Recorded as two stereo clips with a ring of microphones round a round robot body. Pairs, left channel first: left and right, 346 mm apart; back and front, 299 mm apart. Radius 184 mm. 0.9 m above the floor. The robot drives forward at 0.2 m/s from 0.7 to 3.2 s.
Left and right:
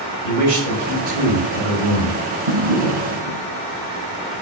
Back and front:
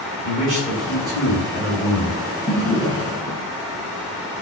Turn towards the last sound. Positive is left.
turn(degrees=-80)